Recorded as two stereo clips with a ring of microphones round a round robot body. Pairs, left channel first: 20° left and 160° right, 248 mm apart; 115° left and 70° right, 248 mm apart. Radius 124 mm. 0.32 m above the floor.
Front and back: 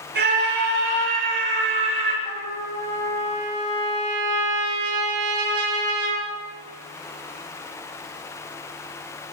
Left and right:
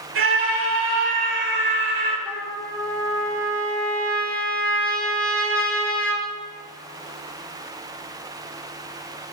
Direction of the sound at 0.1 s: 105° right.